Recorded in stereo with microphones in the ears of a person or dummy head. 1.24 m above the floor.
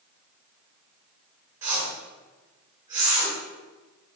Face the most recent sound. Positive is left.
turn(degrees=-15)  # may be behind; listen again after turning